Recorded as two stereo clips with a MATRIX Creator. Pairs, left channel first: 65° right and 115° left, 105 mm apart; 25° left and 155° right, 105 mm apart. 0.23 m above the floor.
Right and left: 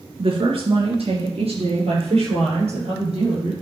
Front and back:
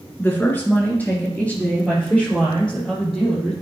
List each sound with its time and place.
0.2 s a woman speaking: 90° left, 2.5 m; by 3.5 s 105° left, 6 m